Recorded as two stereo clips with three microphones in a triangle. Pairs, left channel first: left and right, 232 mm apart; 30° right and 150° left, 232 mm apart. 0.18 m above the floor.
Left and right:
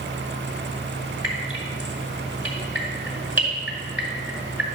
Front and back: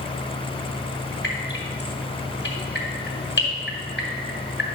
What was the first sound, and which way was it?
Dripping, 10° right.